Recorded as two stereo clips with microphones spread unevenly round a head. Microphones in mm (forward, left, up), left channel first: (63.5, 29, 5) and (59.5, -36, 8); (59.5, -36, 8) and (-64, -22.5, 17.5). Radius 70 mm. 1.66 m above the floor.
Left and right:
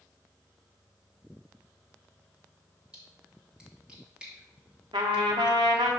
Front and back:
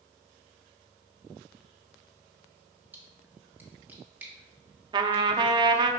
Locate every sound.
2.9 s a splash: 135° right, 1.3 m
4.9 s a trumpet: 135° right, 0.6 m